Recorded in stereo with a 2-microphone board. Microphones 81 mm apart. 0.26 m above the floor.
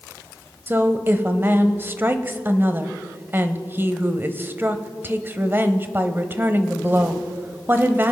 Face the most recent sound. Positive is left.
turn(degrees=-25)  # may be behind; listen again after turning